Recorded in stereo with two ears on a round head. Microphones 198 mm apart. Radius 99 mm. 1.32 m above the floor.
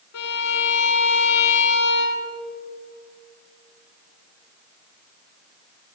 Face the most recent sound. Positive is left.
turn(degrees=85)